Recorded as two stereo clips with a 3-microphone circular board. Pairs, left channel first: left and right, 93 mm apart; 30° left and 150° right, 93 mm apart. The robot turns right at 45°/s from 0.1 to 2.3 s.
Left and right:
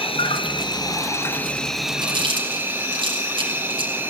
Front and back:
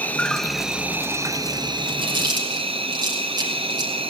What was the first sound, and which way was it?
An insect, 100° left.